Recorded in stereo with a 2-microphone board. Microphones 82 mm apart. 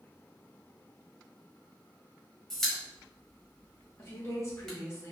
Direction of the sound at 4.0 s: 35° left (ahead or behind).